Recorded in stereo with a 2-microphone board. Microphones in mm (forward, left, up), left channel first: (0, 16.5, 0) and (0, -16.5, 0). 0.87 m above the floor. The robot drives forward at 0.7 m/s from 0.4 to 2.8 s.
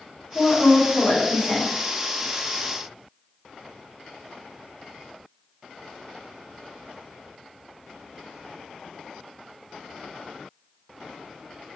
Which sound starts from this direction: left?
A woman speaking, at 0.3 s.